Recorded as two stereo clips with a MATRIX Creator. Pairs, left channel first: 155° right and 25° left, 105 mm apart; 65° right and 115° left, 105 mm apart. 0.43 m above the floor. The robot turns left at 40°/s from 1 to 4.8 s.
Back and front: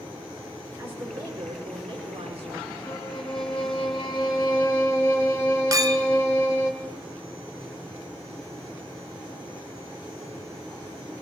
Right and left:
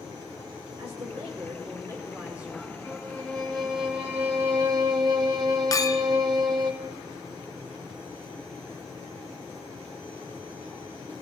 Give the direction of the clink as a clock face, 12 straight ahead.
1 o'clock.